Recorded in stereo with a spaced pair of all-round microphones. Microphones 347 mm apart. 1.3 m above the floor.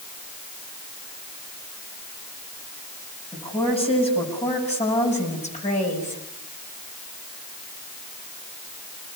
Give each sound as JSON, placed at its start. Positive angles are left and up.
{"t": 3.3, "sound": "a woman speaking", "side_deg": 15, "distance_m": 7.5}